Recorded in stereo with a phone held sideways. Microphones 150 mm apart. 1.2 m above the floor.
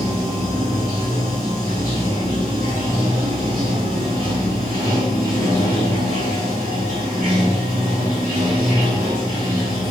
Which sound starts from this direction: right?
Running water, at 0.0 s.